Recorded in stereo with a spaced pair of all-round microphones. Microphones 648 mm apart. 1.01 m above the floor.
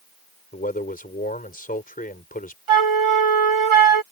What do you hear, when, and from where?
0.5 s a man speaking: 15° left (ahead or behind)
2.7 s a flute: 50° right (ahead or behind)